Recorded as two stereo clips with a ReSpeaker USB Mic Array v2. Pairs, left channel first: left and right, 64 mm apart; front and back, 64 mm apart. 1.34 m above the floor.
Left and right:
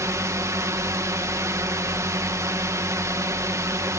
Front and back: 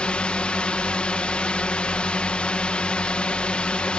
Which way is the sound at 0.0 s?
70° right.